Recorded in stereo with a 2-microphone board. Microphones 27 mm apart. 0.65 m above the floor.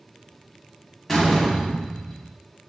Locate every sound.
1.1 s a door slam: 5° left (ahead or behind), 1.0 m